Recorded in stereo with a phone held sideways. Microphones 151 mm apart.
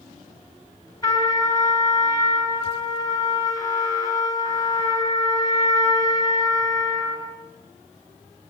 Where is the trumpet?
25° left (ahead or behind), 4.5 m.